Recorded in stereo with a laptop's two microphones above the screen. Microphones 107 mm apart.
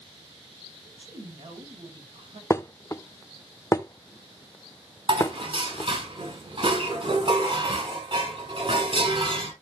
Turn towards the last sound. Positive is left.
turn(degrees=-60)  # may be behind; listen again after turning